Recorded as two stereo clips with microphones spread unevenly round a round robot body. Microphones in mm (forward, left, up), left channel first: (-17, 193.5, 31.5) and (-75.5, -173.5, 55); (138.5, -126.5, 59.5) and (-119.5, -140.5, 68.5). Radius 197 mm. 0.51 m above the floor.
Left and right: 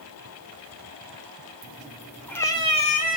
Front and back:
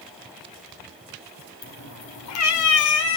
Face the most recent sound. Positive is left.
turn(degrees=10)